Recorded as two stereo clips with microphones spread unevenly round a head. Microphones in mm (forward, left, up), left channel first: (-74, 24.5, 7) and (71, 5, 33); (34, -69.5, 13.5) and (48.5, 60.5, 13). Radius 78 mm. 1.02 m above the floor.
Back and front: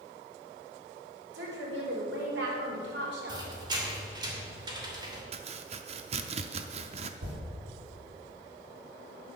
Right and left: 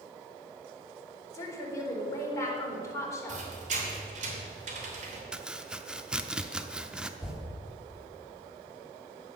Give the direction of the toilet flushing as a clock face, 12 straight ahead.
12 o'clock.